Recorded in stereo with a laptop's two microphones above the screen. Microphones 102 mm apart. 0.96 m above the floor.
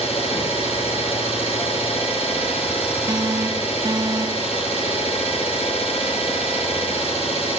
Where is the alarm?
35° right (ahead or behind), 1.1 m.